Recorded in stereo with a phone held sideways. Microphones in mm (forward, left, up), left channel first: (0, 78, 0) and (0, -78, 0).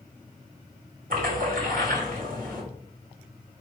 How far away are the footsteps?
No footsteps in this recording.